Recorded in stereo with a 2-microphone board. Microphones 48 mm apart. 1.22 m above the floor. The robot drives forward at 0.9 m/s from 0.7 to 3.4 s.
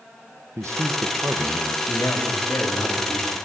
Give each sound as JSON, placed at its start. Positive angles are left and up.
{"t": 0.6, "sound": "a man speaking", "side_deg": -85, "distance_m": 0.7}
{"t": 1.9, "sound": "a man speaking", "side_deg": 70, "distance_m": 2.5}